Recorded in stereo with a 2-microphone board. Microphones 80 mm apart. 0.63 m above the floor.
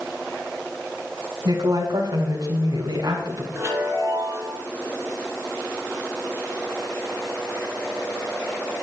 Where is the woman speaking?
60° right (ahead or behind), 3.5 m.